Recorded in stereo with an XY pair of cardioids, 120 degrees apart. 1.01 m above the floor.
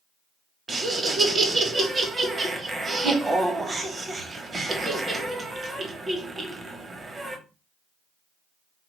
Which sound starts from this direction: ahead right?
Laughter, at 0.7 s.